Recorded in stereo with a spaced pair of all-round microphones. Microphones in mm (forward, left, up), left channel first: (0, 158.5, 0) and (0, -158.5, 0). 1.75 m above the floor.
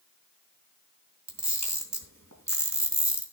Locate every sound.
1.3 s a camera shutter: 60° right (ahead or behind), 3 m